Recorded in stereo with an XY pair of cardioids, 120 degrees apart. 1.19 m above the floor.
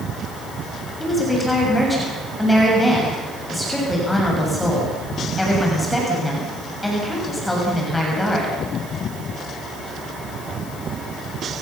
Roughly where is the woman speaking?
Ahead.